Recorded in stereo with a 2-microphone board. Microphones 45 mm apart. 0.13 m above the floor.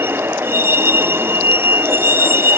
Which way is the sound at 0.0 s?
60° right (ahead or behind).